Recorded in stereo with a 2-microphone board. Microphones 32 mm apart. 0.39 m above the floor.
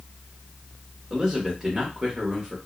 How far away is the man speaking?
About 1.0 m.